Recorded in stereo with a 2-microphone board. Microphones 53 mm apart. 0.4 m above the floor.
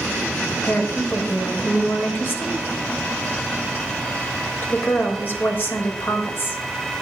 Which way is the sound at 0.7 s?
45° left (ahead or behind).